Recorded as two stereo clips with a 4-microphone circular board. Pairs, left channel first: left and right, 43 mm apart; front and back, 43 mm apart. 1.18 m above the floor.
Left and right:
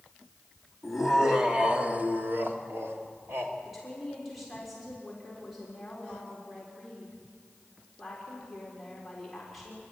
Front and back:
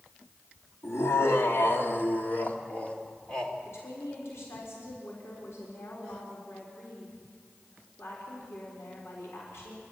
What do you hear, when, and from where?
0.8 s laughter: 5° left, 2.5 m; by 3.5 s 75° right, 3 m
3.6 s a woman speaking: straight ahead, 4.5 m